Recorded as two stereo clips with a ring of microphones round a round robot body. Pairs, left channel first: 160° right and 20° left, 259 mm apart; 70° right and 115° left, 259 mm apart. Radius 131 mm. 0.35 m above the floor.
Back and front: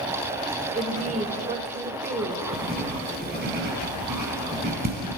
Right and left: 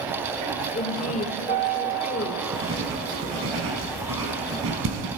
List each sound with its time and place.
0.7 s a woman speaking: 25° right, 1.7 m
2.5 s writing: 75° left, 4 m